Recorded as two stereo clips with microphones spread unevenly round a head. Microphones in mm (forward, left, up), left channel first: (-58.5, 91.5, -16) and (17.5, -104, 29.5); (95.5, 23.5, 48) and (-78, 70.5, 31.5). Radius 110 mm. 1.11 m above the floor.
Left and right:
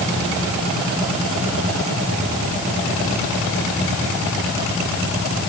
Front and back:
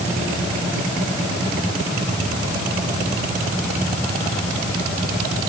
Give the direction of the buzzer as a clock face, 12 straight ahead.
No buzzer in this recording.